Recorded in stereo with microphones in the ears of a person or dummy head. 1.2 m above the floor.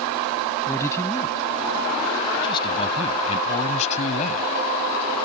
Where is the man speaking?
15° left (ahead or behind); by 5.2 s 50° left (ahead or behind).